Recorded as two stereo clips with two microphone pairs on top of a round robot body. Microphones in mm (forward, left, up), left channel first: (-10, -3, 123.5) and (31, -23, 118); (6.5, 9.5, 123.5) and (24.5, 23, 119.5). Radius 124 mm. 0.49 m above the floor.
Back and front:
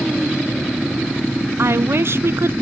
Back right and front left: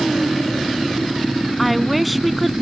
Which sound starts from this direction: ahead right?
A woman speaking, at 1.6 s.